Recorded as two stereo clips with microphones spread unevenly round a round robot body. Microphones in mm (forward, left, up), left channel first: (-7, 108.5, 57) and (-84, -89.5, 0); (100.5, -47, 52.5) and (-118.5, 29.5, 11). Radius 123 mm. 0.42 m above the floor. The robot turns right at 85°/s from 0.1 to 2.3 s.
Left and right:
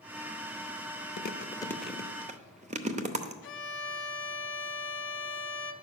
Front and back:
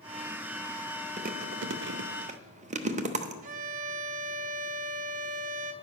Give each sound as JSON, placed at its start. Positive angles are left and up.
{"t": 1.2, "sound": "chewing", "azimuth_deg": 110, "distance_m": 0.8}
{"t": 3.4, "sound": "a violin", "azimuth_deg": 105, "distance_m": 0.7}